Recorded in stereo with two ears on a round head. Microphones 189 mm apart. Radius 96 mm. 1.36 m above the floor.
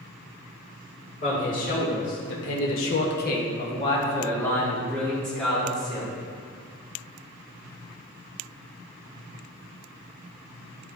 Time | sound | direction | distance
1.2 | a man speaking | 40° left (ahead or behind) | 2 m